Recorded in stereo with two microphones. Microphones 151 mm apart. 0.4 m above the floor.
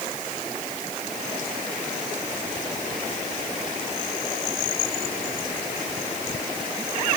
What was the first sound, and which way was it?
Only background noise.